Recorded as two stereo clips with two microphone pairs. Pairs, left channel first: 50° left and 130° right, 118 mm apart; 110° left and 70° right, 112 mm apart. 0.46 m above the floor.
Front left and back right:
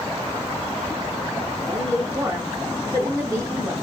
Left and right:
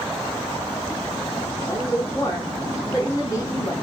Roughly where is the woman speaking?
Behind.